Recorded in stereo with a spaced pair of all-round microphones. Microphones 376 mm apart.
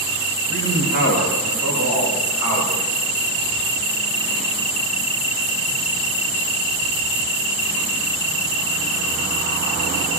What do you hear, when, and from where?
0.5 s a man speaking: 45° right (ahead or behind), 4.5 m; by 2.8 s 60° right (ahead or behind), 5.5 m